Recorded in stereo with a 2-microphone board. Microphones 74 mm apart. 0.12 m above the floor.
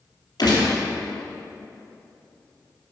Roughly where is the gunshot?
Left.